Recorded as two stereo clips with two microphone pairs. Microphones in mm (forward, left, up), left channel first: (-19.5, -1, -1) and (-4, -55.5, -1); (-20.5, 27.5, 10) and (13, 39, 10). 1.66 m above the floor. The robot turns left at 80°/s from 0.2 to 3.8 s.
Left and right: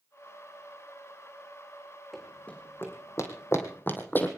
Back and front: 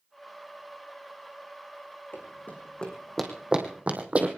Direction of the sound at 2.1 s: 160° right.